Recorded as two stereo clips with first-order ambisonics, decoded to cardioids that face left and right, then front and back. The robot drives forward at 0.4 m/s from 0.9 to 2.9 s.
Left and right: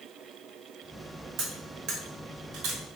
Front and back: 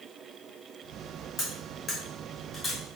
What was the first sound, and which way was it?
Cutlery clinking, 55° right.